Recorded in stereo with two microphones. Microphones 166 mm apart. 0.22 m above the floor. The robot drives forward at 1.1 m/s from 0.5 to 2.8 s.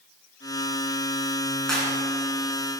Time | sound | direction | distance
1.7 | a clap | 5° left (ahead or behind) | 2.5 m